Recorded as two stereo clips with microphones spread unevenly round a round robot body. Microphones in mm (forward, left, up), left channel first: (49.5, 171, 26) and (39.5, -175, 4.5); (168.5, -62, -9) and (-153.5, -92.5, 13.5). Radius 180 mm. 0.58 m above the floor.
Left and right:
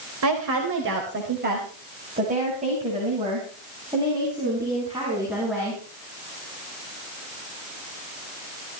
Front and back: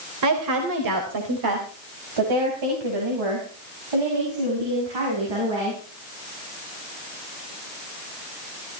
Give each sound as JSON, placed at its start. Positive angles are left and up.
{"t": 0.2, "sound": "a woman speaking", "azimuth_deg": -140, "distance_m": 3.0}